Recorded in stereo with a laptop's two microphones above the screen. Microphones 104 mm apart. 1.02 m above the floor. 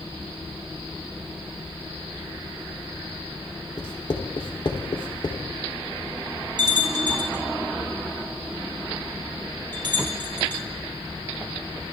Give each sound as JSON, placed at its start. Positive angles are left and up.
{"t": 3.8, "sound": "writing", "side_deg": 50, "distance_m": 2.5}
{"t": 6.6, "sound": "a bell", "side_deg": -45, "distance_m": 5.0}